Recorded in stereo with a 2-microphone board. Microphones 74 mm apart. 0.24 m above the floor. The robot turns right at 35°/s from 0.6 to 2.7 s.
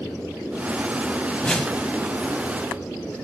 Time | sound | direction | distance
1.4 | a whoosh | 15° left (ahead or behind) | 0.6 m